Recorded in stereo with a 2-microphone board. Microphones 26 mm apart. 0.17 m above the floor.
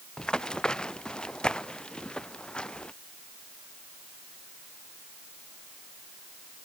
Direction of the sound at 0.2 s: 30° left (ahead or behind).